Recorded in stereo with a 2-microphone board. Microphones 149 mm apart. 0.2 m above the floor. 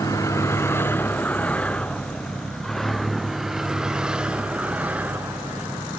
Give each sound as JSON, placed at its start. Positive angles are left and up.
{"t": 0.0, "sound": "a vehicle", "side_deg": 20}